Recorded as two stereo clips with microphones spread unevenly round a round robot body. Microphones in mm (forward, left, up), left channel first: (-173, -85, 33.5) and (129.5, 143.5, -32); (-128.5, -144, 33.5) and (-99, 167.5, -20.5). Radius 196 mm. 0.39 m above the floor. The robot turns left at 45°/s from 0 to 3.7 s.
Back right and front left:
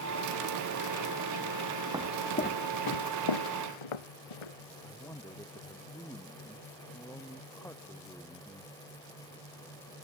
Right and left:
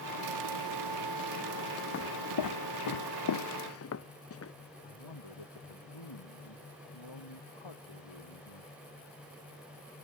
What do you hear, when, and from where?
1.9 s footsteps: 50° right; by 4.5 s 140° right
4.8 s a man speaking: 60° right